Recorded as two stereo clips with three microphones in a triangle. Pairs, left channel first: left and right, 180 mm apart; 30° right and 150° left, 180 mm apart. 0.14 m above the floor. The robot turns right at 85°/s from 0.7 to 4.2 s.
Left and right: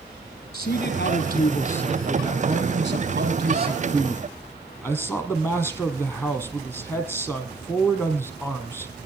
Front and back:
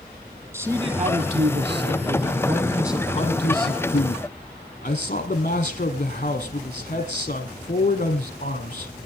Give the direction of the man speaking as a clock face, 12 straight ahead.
9 o'clock.